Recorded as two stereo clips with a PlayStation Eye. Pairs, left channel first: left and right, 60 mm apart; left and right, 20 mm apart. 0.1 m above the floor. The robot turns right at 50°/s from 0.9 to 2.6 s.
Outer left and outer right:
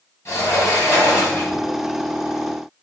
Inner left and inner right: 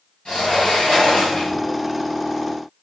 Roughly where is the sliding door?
Left.